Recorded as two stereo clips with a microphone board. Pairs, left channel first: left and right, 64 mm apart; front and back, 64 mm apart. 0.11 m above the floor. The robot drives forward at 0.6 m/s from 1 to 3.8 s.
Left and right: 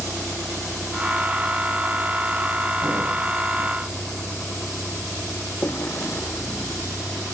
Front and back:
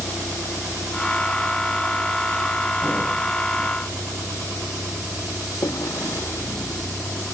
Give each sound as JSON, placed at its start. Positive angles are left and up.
{"t": 0.0, "sound": "a vehicle", "azimuth_deg": 35}